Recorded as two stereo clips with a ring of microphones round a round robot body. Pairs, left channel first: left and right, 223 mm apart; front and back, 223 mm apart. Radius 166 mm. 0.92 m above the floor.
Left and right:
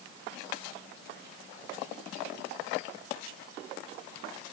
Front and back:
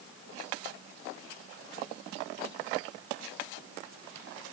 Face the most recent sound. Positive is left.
No sound to turn to.